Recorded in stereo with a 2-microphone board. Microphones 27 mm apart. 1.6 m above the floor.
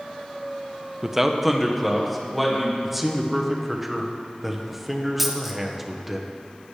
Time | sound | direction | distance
1.0 | a man speaking | 15° right (ahead or behind) | 0.6 m
2.8 | a man speaking | 5° right (ahead or behind) | 1.1 m
5.2 | a dropped coin | 5° right (ahead or behind) | 0.9 m